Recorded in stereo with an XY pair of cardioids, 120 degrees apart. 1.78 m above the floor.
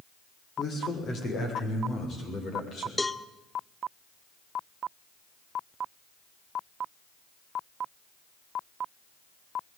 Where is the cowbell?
10° left, 0.7 m.